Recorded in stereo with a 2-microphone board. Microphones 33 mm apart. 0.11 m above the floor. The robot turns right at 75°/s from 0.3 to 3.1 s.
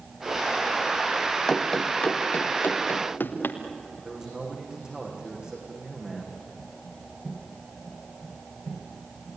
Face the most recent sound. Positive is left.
turn(degrees=-25)  # may be behind; listen again after turning